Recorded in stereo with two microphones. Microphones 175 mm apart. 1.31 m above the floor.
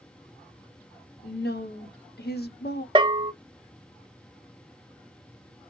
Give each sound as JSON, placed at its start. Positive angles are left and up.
{"t": 1.2, "sound": "a woman speaking", "side_deg": 70, "distance_m": 0.9}
{"t": 3.0, "sound": "a bell", "side_deg": -30, "distance_m": 0.5}